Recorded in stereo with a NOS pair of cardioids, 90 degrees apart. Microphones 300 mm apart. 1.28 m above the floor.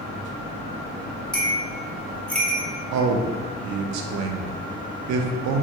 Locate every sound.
1.3 s a bell: 5° left, 1.0 m
2.9 s a man speaking: 70° right, 0.5 m